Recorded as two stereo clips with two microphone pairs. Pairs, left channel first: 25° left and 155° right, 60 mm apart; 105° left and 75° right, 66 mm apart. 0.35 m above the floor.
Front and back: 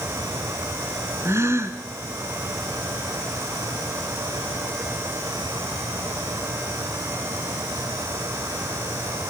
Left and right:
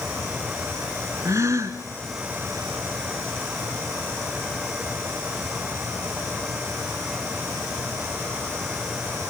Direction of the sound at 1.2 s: 115° right.